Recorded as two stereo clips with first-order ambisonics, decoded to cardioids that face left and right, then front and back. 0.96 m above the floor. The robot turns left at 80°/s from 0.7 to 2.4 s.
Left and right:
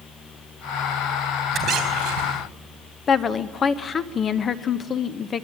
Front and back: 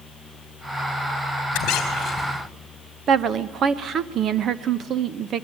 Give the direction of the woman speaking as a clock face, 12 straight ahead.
7 o'clock.